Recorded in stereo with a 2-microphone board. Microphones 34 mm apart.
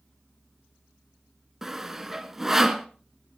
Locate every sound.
1.6 s sawing: 10° right (ahead or behind), 0.9 m